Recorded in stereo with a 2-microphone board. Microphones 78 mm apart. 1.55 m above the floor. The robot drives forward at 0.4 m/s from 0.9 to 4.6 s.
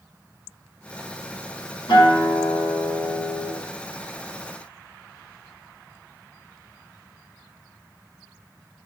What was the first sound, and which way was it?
A guitar, 65° left (ahead or behind).